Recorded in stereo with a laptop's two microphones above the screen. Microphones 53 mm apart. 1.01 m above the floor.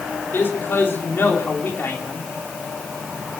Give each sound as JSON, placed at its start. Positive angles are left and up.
{"t": 0.3, "sound": "a man speaking", "side_deg": 45, "distance_m": 3.0}